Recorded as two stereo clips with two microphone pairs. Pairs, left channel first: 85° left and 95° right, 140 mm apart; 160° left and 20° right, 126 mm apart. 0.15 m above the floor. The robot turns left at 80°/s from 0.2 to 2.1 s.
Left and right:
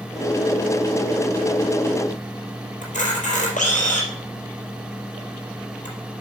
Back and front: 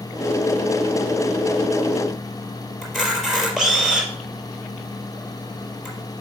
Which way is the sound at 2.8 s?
70° left.